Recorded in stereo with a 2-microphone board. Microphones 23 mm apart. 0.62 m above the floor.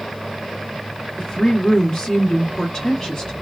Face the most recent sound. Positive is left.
turn(degrees=35)  # may be behind; listen again after turning